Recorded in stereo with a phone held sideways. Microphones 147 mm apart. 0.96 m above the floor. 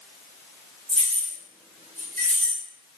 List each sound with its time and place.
0.9 s keys jangling: 45° right (ahead or behind), 1.8 m; by 2.6 s 70° right (ahead or behind), 2 m